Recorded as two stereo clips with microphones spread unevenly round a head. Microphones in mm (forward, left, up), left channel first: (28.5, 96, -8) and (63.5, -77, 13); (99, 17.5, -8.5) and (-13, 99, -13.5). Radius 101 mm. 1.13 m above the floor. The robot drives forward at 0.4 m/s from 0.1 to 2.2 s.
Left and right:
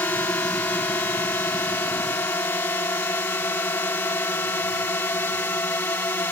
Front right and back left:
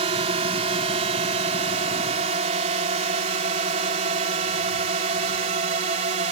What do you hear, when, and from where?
0.0 s a drone: 175° left